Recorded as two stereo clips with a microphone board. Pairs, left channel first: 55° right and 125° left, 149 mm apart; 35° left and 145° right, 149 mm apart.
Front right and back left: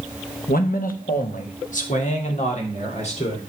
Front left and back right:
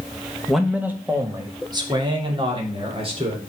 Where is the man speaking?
55° right, 1.2 m; by 3.4 s 95° right, 3.5 m.